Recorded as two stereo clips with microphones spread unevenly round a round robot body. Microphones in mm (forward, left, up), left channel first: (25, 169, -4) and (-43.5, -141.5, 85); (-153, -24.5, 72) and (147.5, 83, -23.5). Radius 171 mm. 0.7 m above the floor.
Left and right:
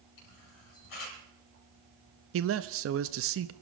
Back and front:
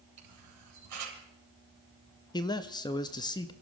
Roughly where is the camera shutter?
Ahead left.